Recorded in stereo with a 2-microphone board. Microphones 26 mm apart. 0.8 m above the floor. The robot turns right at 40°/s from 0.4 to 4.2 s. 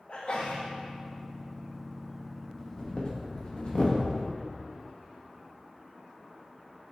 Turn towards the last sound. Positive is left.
turn(degrees=40)  # may be behind; listen again after turning